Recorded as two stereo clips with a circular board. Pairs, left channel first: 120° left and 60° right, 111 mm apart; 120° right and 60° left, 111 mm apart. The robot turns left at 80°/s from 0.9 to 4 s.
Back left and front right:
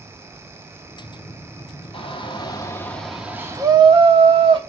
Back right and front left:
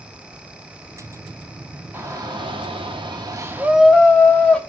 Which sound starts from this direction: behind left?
A shout, at 1.9 s.